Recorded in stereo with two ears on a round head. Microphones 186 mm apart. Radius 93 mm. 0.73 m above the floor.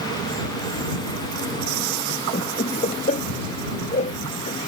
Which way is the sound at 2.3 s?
35° left (ahead or behind).